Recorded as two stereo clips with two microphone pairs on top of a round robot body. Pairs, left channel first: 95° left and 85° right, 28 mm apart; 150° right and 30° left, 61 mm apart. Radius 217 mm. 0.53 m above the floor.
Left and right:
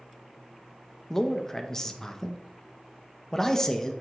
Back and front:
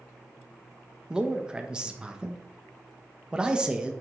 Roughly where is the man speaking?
Left.